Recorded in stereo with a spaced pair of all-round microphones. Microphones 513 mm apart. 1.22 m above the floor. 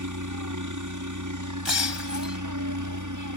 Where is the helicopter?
35° right (ahead or behind).